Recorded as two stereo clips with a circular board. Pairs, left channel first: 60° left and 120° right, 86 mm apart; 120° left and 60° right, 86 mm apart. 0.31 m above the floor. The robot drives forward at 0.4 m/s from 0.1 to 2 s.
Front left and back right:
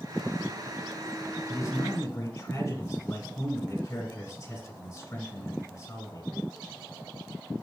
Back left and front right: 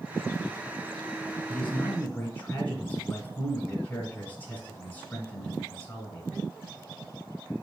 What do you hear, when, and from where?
1.5 s a man speaking: 60° left, 1.4 m; by 6.4 s 75° left, 1.3 m